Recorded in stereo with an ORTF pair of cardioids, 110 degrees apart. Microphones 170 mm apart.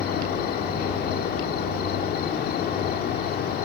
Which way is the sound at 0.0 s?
65° left.